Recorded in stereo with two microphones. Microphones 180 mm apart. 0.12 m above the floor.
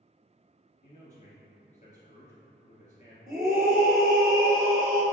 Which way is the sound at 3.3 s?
20° right (ahead or behind).